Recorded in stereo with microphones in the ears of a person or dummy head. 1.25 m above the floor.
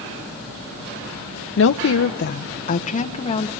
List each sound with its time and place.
1.6 s a woman speaking: 60° left (ahead or behind), 0.7 m; by 3.5 s 30° left (ahead or behind), 2.0 m